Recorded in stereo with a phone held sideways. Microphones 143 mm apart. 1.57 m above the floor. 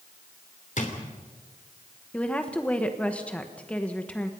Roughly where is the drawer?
Left.